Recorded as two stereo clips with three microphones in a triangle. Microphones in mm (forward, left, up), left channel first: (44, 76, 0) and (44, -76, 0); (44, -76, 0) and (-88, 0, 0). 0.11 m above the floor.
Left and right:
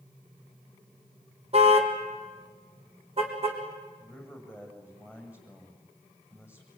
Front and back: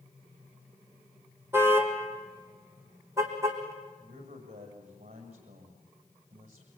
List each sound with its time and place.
1.5 s a car horn: 135° right, 2.5 m; by 3.6 s 140° right, 4 m
4.0 s a man speaking: 170° right, 6 m